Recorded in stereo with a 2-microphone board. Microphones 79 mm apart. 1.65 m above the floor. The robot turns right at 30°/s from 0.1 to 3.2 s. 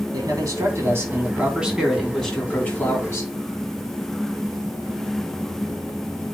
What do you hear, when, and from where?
0.1 s a man speaking: 55° right, 4 m; by 3.3 s 35° left, 4 m